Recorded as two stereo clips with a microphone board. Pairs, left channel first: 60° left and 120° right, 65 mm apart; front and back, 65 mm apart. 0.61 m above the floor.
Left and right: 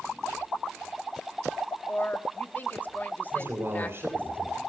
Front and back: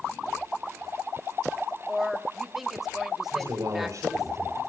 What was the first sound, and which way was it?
A woman speaking, 95° left.